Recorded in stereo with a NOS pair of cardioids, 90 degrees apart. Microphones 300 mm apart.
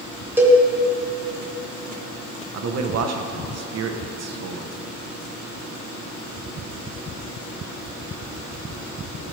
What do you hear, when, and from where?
0.4 s a cowbell: 5° right, 2 m
2.5 s a man speaking: 55° right, 1.1 m